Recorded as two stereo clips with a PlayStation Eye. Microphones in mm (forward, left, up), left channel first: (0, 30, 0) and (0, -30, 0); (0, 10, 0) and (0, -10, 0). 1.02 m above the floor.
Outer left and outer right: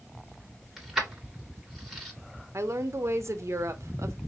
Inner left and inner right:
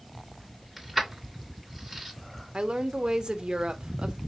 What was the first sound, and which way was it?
Keys jangling, 5° right (ahead or behind).